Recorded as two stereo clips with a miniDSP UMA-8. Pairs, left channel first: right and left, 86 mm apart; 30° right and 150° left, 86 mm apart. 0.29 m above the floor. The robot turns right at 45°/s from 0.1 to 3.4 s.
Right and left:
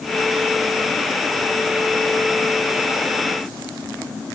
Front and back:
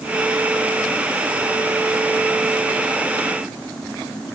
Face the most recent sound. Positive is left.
No sound to turn to.